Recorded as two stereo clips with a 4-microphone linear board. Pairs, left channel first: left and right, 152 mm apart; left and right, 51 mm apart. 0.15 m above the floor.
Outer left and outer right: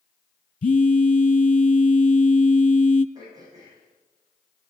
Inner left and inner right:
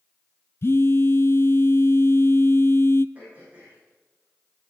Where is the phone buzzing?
60° left (ahead or behind), 0.5 m.